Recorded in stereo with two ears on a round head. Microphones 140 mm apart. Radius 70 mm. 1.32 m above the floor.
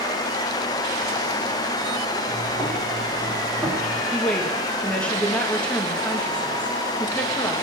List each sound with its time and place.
2.3 s footsteps: 5° left (ahead or behind), 7 m; by 4.0 s 10° right (ahead or behind), 7 m
4.1 s a woman speaking: 5° left (ahead or behind), 1.9 m